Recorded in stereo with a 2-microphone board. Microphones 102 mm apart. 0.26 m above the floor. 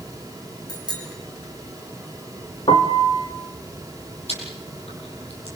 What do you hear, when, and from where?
0.7 s a bicycle bell: 45° left (ahead or behind), 8.5 m
2.7 s a piano: 65° left (ahead or behind), 2 m
4.3 s chewing: 75° left (ahead or behind), 9 m